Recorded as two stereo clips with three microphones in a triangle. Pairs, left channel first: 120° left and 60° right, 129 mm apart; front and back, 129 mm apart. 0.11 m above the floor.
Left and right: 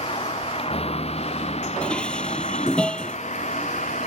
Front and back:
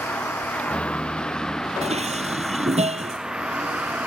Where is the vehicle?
80° left; by 4.1 s 100° left.